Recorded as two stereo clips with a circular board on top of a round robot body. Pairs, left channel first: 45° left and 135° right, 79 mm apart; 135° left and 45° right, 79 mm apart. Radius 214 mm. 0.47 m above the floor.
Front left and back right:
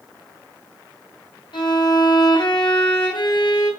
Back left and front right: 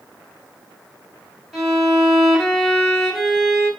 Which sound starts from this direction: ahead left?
A violin, at 1.5 s.